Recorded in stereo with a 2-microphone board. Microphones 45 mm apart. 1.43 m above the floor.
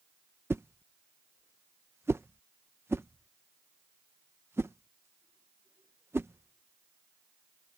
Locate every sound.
0.5 s a whoosh: 65° right (ahead or behind)